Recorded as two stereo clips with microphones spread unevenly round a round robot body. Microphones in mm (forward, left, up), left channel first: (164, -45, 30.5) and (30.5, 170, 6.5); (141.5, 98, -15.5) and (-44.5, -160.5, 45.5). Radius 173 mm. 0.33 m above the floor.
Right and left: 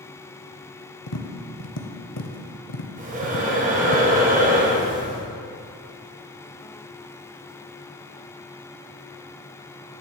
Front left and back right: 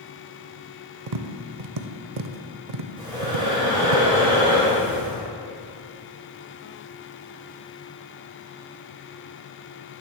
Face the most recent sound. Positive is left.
turn(degrees=150)